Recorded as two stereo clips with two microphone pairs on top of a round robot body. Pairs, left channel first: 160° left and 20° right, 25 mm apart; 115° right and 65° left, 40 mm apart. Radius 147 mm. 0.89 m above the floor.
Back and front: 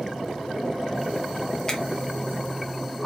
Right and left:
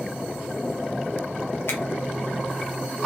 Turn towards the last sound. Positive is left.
turn(degrees=-135)